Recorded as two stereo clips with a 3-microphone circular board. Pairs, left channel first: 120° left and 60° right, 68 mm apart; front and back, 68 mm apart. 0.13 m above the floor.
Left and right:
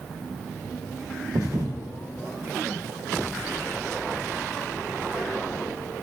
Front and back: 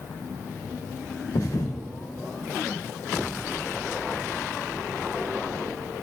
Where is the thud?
30° right, 2.5 m.